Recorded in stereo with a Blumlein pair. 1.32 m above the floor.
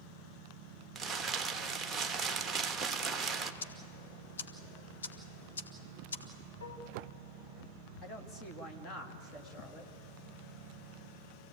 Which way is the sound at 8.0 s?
25° left.